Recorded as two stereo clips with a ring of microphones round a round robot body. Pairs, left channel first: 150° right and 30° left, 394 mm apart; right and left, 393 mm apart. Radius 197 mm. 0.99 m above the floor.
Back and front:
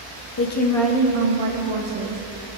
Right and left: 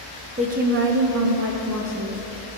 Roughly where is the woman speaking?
Behind.